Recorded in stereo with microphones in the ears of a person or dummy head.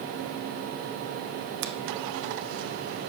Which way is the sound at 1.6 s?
50° right (ahead or behind).